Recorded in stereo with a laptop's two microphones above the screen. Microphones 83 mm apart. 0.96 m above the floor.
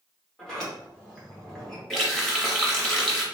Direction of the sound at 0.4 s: 5° left (ahead or behind).